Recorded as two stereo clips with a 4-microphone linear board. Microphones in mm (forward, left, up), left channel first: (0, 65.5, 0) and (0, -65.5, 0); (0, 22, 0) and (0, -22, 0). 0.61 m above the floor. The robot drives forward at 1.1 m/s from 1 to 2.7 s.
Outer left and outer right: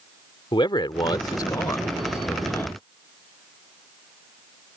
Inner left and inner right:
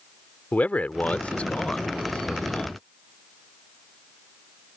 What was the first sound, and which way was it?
A man speaking, 35° left (ahead or behind).